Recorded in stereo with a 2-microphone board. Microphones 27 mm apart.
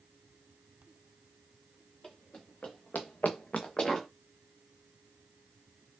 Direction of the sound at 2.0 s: 35° left (ahead or behind).